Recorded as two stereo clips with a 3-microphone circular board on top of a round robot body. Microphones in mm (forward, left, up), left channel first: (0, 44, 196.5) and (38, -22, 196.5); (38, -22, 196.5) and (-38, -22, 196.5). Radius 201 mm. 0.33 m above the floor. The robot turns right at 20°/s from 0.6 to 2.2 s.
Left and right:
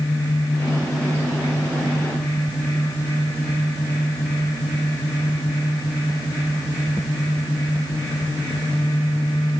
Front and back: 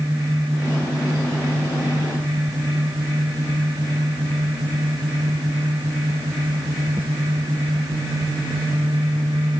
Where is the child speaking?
No child speaking in this recording.